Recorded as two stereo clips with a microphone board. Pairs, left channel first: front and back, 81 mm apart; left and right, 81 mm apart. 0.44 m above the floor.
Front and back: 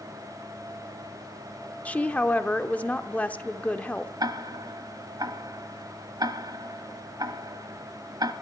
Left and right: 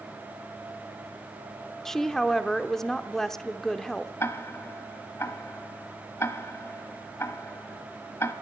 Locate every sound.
1.9 s a woman speaking: 20° left, 0.7 m
4.2 s ticking: 145° left, 1.1 m